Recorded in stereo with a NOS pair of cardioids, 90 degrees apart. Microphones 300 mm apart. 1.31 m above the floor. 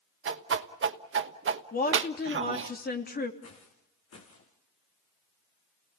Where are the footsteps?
50° left, 5.5 m.